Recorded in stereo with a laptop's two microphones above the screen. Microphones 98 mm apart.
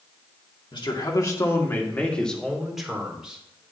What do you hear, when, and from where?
0.7 s a man speaking: 50° left (ahead or behind), 2 m; by 3.7 s 15° right (ahead or behind), 3.5 m